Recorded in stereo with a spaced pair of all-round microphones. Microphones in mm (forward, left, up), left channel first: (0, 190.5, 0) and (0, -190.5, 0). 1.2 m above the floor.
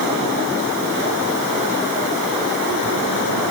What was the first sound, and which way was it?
Only background noise.